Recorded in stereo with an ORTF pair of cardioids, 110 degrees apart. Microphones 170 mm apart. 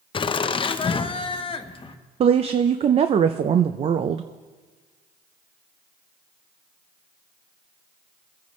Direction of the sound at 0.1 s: 30° left.